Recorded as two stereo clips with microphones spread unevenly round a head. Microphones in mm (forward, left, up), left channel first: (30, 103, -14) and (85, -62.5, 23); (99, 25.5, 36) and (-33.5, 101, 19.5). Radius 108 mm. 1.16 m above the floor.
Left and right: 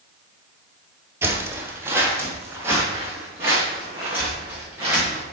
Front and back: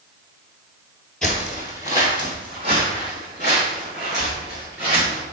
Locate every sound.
1.2 s footsteps: 100° right, 1.2 m; by 5.2 s 150° right, 5 m